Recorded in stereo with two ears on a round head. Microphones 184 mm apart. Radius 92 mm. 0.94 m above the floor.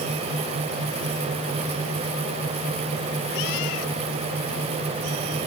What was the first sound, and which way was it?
Only background noise.